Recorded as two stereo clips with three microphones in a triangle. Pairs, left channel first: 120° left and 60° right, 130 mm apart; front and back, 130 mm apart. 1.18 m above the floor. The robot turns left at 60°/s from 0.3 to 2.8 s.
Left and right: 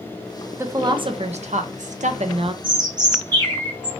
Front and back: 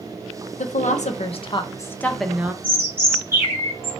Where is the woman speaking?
10° left, 0.8 m; by 2.5 s 105° right, 0.8 m.